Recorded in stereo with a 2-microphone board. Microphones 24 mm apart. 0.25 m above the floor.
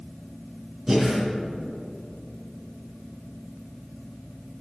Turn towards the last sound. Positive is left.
turn(degrees=-15)  # may be behind; listen again after turning